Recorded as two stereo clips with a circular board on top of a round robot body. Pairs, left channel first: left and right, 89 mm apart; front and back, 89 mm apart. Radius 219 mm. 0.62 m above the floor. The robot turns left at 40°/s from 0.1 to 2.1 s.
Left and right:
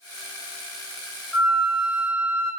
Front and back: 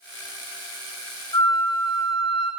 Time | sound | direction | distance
1.3 | a flute | 5° left | 1.9 m